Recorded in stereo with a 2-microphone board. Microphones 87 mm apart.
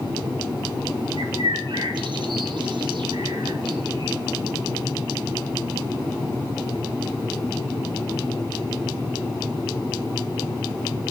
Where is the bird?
60° right (ahead or behind), 1.5 m.